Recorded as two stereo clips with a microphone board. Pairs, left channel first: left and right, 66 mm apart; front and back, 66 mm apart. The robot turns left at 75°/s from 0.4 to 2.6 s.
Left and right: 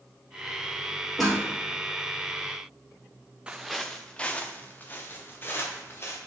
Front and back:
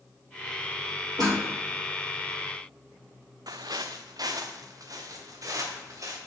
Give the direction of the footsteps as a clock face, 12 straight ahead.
5 o'clock.